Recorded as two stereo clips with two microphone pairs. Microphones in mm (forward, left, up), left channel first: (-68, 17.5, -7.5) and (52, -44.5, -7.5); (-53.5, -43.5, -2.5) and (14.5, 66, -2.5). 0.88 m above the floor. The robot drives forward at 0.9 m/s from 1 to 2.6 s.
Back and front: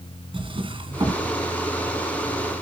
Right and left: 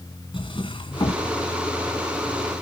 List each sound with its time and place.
0.3 s a drawer: 75° right, 2 m; by 1.2 s 80° right, 2 m